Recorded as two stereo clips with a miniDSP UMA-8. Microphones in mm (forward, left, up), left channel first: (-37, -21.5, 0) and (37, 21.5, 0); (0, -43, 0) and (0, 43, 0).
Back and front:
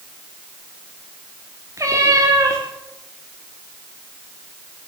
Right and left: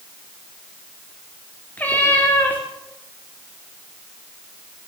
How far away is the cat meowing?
About 6 m.